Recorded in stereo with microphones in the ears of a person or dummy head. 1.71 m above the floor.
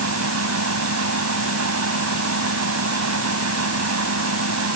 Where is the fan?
85° right.